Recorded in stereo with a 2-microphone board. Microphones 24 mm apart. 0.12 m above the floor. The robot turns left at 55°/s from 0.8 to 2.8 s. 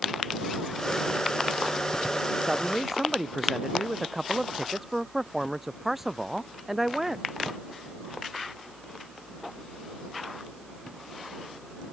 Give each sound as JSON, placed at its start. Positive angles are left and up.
{"t": 2.4, "sound": "a man speaking", "side_deg": -35}